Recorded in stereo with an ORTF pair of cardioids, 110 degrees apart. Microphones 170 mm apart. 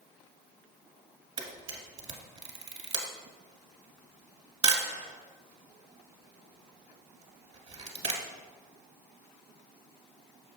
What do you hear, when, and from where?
1.4 s a camera shutter: 35° right, 1.7 m